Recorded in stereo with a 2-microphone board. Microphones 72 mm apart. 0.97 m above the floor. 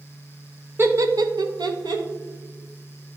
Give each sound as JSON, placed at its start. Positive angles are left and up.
{"t": 0.8, "sound": "laughter", "side_deg": -30, "distance_m": 0.6}